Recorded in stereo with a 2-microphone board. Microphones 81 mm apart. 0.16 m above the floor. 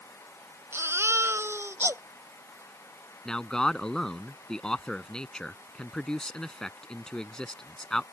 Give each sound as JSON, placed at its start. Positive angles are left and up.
{"t": 0.7, "sound": "a baby crying", "side_deg": -35}
{"t": 3.2, "sound": "a man speaking", "side_deg": 10}